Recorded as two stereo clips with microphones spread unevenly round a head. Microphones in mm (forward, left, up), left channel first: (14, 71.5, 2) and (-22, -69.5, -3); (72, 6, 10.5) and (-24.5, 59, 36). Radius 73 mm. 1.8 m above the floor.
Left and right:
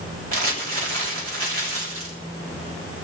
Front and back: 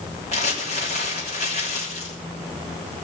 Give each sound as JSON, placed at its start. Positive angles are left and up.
{"t": 0.3, "sound": "crumpling", "azimuth_deg": -70, "distance_m": 3.5}